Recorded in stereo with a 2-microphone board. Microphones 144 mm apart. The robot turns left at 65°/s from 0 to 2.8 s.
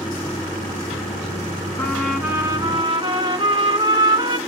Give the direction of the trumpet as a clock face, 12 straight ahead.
11 o'clock.